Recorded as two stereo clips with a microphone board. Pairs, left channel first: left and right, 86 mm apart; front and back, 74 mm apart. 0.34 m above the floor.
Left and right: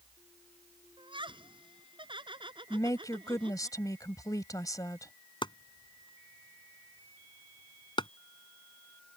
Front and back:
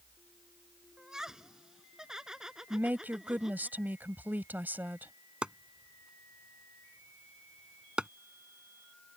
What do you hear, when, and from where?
1.0 s laughter: 100° right
2.7 s a woman speaking: 120° left
5.4 s chopping: 105° left